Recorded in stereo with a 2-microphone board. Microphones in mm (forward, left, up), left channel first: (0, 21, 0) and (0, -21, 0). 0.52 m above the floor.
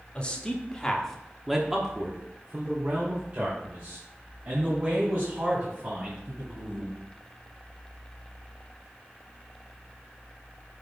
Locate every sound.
0.1 s a man speaking: 25° left (ahead or behind), 1.4 m; by 7.0 s 35° right (ahead or behind), 4.5 m